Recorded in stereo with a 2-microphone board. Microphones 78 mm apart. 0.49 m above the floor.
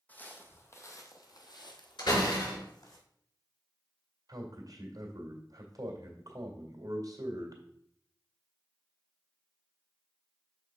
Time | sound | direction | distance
0.1 | footsteps | 20° left (ahead or behind) | 1.3 m
2.0 | a door slam | 80° left | 4.5 m
4.3 | a man speaking | 55° right (ahead or behind) | 1.9 m